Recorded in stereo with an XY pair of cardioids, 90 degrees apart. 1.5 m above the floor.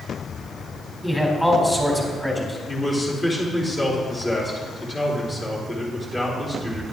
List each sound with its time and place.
1.0 s a man speaking: 5° left, 4 m
2.7 s a man speaking: 20° left, 4 m